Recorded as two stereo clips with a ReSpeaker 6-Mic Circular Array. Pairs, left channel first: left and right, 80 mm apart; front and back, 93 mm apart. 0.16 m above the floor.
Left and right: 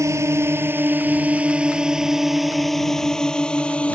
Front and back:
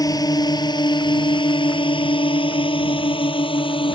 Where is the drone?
45° right; by 4.0 s 15° left.